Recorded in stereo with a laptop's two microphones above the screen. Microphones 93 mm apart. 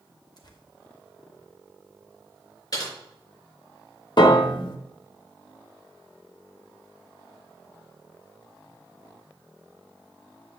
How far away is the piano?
About 0.9 m.